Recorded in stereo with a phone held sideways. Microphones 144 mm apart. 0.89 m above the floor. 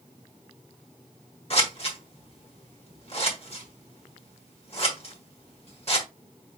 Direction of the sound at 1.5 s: 45° left (ahead or behind).